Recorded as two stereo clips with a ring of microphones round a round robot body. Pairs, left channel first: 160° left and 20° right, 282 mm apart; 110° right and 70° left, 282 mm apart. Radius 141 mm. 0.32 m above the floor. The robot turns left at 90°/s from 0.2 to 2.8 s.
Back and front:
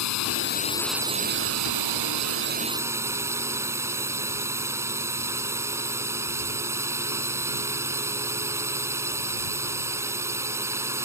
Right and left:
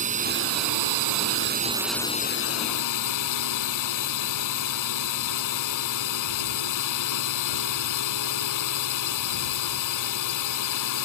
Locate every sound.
0.0 s a drone: 130° left; by 11.1 s 105° right